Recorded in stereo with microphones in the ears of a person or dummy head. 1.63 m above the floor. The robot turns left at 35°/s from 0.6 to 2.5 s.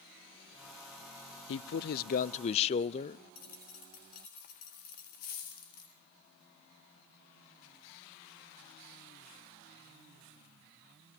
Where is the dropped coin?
40° left (ahead or behind), 1.5 m.